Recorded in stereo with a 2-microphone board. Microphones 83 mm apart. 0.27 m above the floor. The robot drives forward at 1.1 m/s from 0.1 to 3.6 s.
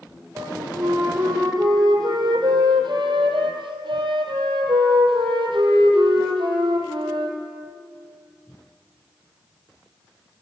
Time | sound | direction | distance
0.3 | a flute | 40° right (ahead or behind) | 4.5 m